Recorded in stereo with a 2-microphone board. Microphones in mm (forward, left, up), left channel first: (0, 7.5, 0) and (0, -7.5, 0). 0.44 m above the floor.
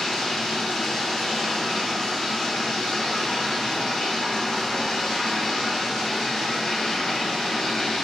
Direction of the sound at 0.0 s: 50° left (ahead or behind).